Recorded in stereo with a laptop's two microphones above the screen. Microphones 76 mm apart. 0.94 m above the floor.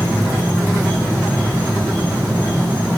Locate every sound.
0.0 s an insect: 25° right (ahead or behind), 2 m